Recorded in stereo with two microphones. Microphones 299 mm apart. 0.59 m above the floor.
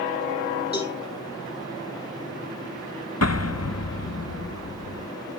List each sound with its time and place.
0.7 s a cowbell: 30° left (ahead or behind), 7 m
3.2 s an explosion: 55° left (ahead or behind), 0.6 m